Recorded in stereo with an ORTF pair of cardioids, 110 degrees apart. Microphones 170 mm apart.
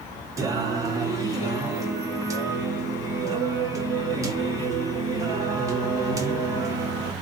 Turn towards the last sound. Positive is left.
turn(degrees=-20)